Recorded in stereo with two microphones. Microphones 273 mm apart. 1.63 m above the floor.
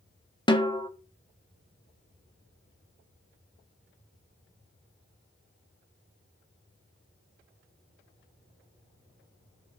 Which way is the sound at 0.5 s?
15° left (ahead or behind).